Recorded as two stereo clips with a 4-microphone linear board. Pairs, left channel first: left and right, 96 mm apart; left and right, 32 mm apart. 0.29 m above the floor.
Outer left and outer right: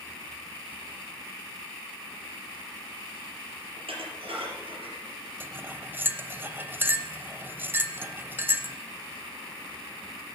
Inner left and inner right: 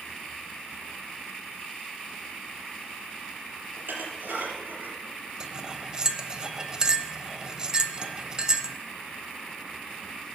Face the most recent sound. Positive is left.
turn(degrees=-20)  # may be behind; listen again after turning